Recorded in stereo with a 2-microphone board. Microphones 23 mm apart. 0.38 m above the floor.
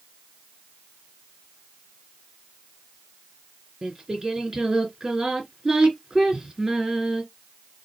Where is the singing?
35° right (ahead or behind), 2.5 m.